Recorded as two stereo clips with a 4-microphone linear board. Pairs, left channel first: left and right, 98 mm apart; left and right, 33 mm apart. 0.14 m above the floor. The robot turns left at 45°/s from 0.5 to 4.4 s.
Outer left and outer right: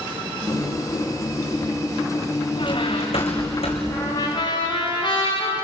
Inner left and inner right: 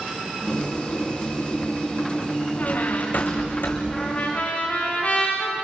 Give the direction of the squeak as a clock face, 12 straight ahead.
8 o'clock.